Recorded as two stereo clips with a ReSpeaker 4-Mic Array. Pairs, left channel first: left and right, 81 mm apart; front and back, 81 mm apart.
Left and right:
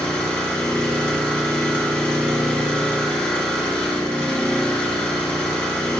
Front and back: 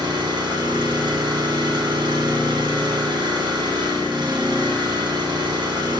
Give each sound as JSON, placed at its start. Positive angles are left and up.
{"t": 0.0, "sound": "an engine running", "azimuth_deg": 170, "distance_m": 1.7}